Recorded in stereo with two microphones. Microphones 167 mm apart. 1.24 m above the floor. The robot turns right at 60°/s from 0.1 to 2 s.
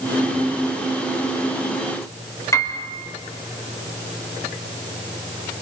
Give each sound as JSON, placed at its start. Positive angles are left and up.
{"t": 2.5, "sound": "a piano", "side_deg": 20, "distance_m": 3.0}